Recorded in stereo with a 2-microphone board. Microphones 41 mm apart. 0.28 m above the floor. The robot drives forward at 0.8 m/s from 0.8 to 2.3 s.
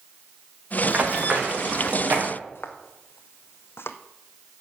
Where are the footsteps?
65° left (ahead or behind), 1.7 m; by 4.0 s 80° left, 1.0 m.